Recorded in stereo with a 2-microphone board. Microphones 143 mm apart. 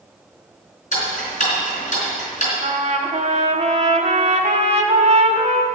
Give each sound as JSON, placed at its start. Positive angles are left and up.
{"t": 0.9, "sound": "ticking", "side_deg": 60, "distance_m": 4.0}
{"t": 2.6, "sound": "a trumpet", "side_deg": -55, "distance_m": 1.1}